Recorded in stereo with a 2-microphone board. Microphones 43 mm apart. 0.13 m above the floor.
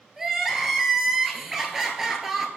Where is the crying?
15° right (ahead or behind), 1.5 m.